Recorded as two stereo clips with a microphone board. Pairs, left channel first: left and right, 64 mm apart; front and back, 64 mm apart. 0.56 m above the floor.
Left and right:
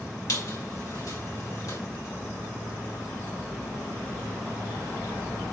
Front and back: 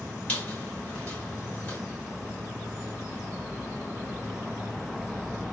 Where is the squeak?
70° left, 1.8 m.